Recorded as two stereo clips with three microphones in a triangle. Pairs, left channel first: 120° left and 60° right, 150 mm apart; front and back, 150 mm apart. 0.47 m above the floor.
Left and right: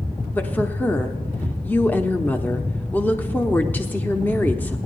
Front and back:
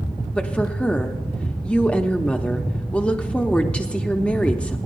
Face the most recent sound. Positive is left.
turn(degrees=65)